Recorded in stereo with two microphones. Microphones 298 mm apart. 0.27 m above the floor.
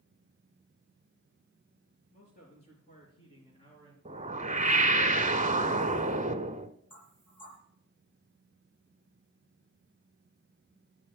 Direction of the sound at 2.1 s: 35° left (ahead or behind).